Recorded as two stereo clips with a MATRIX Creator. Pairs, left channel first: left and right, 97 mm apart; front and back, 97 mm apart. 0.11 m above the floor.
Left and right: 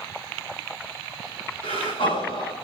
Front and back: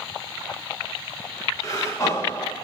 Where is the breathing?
60° left, 4 m.